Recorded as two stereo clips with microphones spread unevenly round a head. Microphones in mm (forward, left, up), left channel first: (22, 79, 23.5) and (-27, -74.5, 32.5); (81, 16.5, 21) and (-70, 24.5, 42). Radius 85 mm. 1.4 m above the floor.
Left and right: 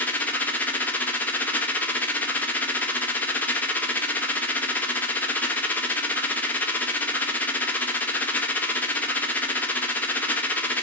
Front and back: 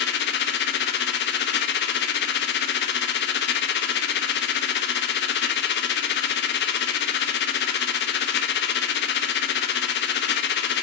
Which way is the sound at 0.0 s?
10° right.